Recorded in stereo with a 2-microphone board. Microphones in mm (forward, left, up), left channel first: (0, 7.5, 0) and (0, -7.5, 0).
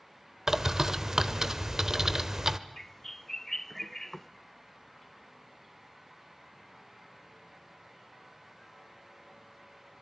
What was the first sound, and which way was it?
A bird, 35° right (ahead or behind).